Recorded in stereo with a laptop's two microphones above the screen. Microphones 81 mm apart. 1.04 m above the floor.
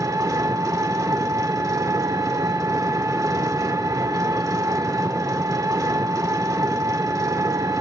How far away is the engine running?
About 1.6 m.